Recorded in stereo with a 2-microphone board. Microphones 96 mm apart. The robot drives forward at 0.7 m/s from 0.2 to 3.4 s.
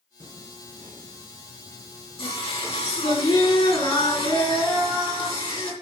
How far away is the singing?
About 4 m.